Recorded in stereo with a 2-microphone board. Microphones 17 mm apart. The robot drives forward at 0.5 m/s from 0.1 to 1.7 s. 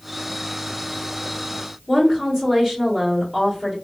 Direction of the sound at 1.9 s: 20° right (ahead or behind).